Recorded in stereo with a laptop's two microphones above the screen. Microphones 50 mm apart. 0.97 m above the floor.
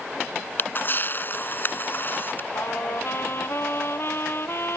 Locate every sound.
0.6 s a camera shutter: 40° left (ahead or behind)
2.5 s a trumpet: 55° left (ahead or behind)